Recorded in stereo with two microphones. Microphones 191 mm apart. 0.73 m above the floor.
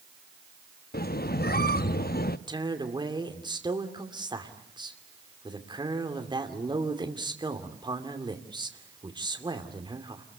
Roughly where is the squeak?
Left.